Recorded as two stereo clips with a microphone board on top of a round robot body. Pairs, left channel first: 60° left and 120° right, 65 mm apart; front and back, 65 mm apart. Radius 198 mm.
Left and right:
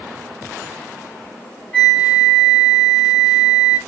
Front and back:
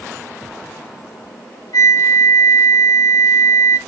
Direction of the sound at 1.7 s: 5° right.